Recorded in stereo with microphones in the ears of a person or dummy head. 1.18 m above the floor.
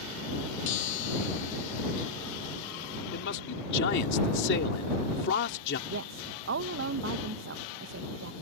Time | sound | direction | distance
0.7 | a chime | 75° left (ahead or behind) | ?
3.1 | a man speaking | 65° left (ahead or behind) | ?
5.9 | a woman speaking | 65° right (ahead or behind) | ?